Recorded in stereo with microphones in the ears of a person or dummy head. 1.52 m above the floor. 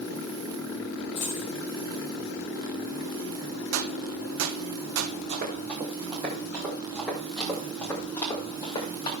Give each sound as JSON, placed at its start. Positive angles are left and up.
{"t": 1.1, "sound": "a dropped coin", "side_deg": 35, "distance_m": 2.0}
{"t": 3.7, "sound": "a gunshot", "side_deg": -65, "distance_m": 0.8}
{"t": 5.3, "sound": "running footsteps", "side_deg": -30, "distance_m": 2.5}